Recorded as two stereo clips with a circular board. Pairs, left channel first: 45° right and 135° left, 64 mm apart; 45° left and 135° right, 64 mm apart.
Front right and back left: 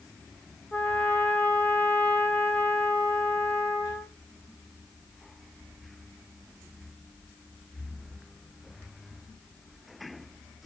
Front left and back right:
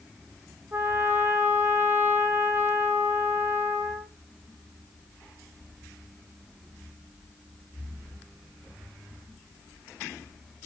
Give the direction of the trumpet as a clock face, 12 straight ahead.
3 o'clock.